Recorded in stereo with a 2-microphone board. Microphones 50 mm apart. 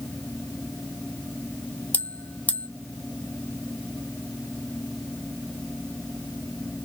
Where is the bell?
30° left (ahead or behind), 0.5 m.